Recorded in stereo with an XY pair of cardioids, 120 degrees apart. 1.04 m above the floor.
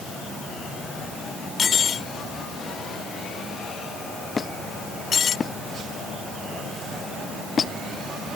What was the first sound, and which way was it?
Cutlery clinking, 45° left.